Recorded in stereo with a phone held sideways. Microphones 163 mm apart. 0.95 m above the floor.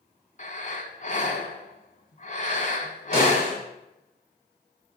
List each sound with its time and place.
0.4 s breathing: 50° left (ahead or behind), 1.1 m
3.1 s a snare drum: 35° right (ahead or behind), 4.5 m